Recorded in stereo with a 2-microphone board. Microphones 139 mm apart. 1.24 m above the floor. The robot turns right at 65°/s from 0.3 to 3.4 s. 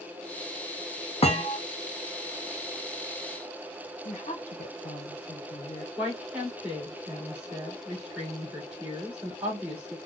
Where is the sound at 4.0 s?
55° left (ahead or behind), 0.7 m.